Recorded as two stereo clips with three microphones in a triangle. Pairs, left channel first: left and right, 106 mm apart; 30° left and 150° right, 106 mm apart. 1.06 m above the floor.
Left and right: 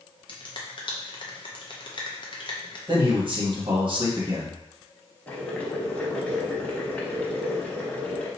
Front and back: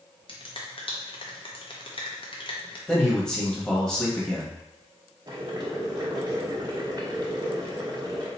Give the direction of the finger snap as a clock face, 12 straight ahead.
10 o'clock.